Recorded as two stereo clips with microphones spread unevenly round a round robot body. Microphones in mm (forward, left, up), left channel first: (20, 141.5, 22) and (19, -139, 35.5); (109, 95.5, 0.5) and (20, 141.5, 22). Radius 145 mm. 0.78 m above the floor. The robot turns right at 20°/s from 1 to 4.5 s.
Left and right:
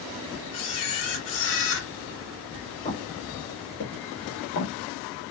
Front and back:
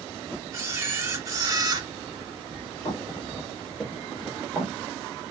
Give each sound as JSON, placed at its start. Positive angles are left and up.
{"t": 0.5, "sound": "a camera shutter", "azimuth_deg": 100, "distance_m": 1.2}
{"t": 2.9, "sound": "footsteps", "azimuth_deg": 15, "distance_m": 1.0}